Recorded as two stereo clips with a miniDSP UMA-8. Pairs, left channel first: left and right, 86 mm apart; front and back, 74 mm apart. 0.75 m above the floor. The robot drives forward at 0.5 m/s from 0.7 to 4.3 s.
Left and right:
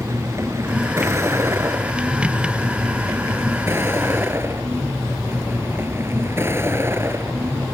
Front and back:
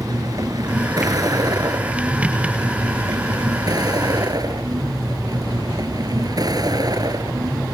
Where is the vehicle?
145° right; by 7.7 s 150° right.